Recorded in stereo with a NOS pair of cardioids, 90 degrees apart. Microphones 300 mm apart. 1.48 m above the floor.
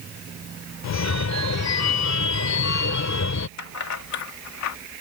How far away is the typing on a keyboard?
No typing on a keyboard in this recording.